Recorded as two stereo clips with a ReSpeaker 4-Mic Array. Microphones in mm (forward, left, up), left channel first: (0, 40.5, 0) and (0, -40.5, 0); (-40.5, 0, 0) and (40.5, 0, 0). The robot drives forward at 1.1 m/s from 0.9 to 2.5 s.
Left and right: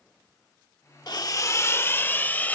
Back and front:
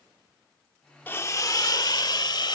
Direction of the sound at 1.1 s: 115° left.